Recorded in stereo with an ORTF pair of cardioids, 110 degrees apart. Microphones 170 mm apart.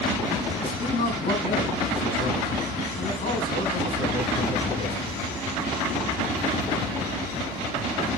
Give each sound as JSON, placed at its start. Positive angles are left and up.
{"t": 0.6, "sound": "a man speaking", "azimuth_deg": 35, "distance_m": 5.5}